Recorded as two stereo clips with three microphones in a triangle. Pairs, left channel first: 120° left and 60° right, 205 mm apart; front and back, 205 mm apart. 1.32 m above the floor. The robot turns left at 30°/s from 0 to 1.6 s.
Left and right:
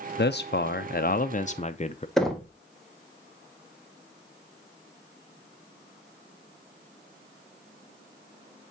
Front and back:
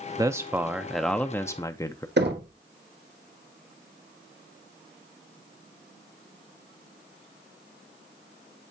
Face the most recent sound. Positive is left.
turn(degrees=-150)